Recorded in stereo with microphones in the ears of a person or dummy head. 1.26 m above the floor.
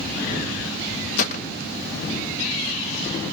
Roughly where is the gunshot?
Left.